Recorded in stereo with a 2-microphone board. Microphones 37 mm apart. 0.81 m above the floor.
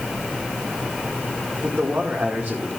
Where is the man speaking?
80° right, 1.7 m.